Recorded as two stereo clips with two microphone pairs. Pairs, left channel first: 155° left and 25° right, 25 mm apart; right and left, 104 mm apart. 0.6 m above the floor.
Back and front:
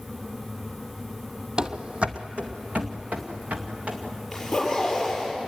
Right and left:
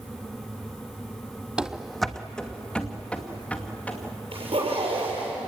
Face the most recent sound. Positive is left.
turn(degrees=70)